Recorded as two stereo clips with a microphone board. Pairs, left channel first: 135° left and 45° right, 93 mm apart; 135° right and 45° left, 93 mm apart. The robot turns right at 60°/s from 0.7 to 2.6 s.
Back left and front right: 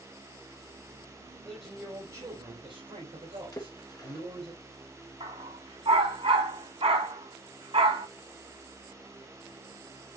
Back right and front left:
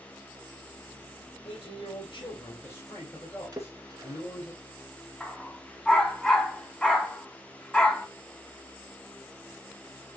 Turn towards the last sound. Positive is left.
turn(degrees=-55)